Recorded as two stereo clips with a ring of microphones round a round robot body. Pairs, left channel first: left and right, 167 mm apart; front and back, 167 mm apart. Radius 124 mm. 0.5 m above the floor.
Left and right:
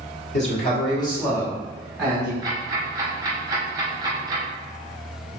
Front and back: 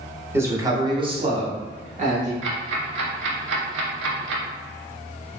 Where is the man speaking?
110° left, 1.2 m; by 2.3 s 160° right, 1.3 m.